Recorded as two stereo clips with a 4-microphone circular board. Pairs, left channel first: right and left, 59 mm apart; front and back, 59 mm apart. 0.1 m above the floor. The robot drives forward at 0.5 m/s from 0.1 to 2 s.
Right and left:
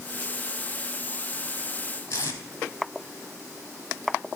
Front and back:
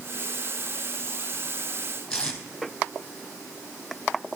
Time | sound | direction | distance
2.1 | tape being pulled | 75° right | 1.4 m